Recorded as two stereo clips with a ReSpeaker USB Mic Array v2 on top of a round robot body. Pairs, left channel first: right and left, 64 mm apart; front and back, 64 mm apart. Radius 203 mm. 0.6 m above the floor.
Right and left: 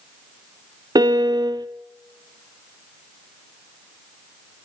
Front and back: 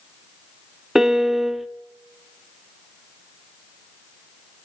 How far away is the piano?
About 0.9 m.